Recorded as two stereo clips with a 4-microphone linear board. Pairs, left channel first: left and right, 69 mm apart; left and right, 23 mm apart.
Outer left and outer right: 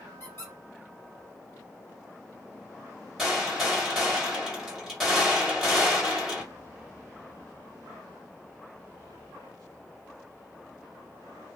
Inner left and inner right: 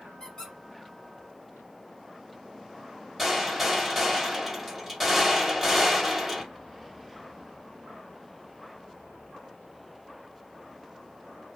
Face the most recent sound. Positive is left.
turn(degrees=0)  # may be behind; listen again after turning